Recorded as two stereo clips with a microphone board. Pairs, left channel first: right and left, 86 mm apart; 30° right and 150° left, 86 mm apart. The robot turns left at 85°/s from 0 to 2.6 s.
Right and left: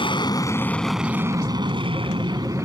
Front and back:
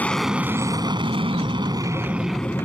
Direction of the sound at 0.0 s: 100° right.